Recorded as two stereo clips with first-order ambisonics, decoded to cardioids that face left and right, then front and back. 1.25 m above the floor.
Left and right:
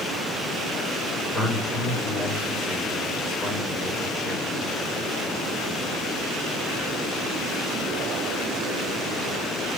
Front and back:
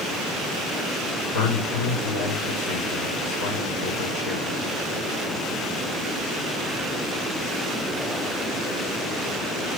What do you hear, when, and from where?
1.3 s a man speaking: 5° right, 5.5 m